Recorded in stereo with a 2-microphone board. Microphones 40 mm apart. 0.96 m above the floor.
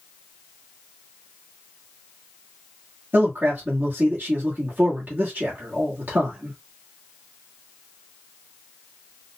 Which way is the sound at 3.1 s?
55° right (ahead or behind).